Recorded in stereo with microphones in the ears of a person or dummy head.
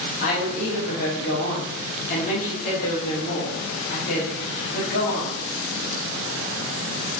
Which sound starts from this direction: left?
A woman speaking, at 0.2 s.